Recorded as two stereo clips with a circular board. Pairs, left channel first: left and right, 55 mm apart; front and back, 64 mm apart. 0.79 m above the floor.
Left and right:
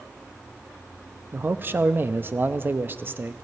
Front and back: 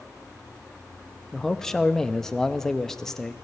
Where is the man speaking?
80° right, 0.6 m.